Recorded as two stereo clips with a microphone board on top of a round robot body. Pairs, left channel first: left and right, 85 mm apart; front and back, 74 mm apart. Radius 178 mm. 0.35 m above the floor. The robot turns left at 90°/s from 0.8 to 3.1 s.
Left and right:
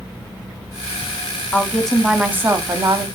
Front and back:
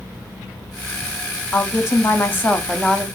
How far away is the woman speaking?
About 1.1 m.